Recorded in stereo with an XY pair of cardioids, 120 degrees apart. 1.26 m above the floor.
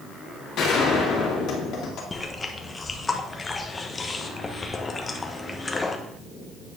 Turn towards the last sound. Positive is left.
turn(degrees=20)